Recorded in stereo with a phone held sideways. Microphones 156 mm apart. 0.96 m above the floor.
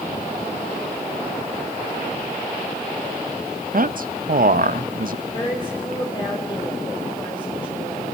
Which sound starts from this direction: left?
A woman speaking, at 5.3 s.